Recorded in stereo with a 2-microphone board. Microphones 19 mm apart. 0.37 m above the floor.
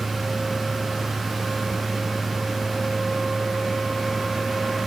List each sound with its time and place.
Only background noise.